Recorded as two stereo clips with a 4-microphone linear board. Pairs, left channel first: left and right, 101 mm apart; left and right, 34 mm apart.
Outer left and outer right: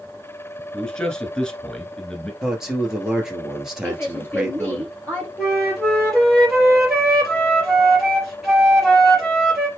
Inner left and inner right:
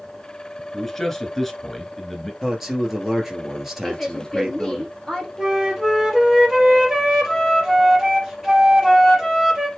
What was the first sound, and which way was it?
A man speaking, 10° left (ahead or behind).